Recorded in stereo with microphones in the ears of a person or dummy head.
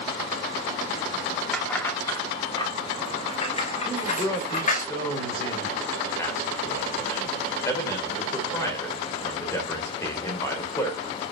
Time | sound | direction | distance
1.5 | keys jangling | 5° left (ahead or behind) | 2.5 m
3.9 | a man speaking | 15° left (ahead or behind) | 4 m